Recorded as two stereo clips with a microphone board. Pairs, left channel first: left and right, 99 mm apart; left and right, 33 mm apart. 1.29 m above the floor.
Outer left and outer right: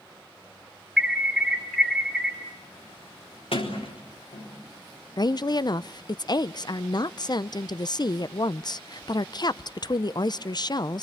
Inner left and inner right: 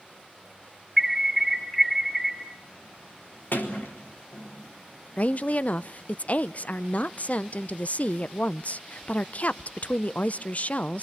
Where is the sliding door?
75° left (ahead or behind), 4 m.